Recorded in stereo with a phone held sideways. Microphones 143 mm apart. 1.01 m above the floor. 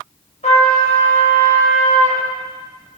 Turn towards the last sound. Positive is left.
turn(degrees=50)  # may be behind; listen again after turning